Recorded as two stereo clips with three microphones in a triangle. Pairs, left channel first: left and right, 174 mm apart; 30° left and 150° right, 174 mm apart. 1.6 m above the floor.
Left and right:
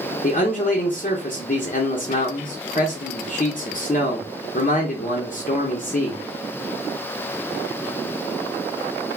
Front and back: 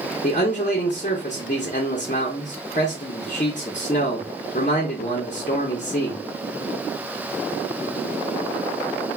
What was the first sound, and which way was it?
A man speaking, 65° left.